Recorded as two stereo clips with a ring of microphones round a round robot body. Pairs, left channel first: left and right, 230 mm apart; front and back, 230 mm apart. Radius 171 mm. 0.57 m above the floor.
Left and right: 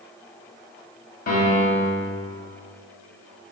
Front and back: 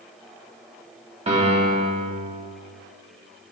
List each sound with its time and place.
1.3 s a piano: 125° left, 1.4 m